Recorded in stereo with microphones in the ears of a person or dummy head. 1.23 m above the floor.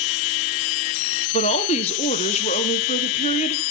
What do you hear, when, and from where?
1.3 s a woman speaking: 30° left (ahead or behind), 0.8 m